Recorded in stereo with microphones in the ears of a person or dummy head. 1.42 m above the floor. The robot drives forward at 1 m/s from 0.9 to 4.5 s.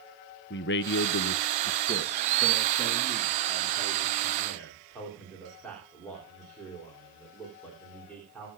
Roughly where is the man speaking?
Left.